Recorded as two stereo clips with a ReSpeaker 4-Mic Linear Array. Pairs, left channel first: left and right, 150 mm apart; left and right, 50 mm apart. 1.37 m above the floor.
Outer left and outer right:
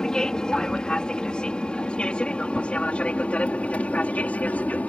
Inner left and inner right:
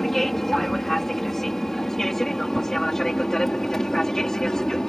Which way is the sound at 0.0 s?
5° left (ahead or behind).